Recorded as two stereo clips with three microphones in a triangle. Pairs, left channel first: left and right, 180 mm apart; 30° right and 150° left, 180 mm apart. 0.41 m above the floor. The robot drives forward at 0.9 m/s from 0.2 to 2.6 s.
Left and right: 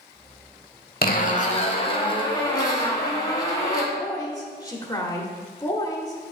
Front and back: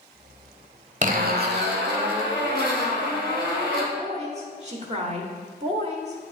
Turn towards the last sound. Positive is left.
turn(degrees=145)